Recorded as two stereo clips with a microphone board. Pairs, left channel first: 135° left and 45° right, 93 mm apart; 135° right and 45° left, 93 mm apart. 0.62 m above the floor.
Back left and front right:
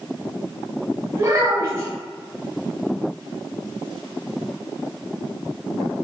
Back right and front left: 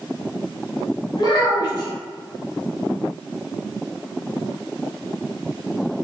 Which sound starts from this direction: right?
A child speaking, at 1.2 s.